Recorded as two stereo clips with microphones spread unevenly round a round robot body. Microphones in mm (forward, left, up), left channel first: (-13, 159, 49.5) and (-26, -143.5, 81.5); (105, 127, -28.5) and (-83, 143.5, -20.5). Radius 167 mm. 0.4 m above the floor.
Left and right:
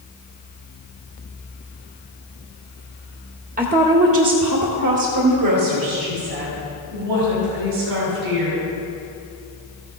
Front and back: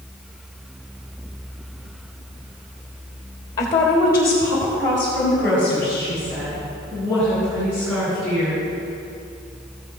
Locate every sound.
3.6 s a woman speaking: 55° right, 1.1 m; by 8.6 s 90° right, 4 m